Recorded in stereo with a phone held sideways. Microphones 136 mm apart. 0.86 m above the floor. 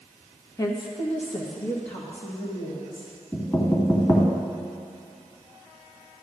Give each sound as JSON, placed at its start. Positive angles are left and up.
{"t": 0.6, "sound": "a woman speaking", "side_deg": 25, "distance_m": 0.8}
{"t": 3.3, "sound": "knocking", "side_deg": 25, "distance_m": 1.7}